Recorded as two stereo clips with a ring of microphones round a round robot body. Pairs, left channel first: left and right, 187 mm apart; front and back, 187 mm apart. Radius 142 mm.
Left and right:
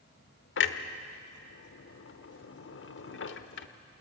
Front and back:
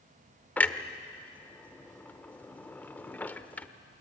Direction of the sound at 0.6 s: 80° left.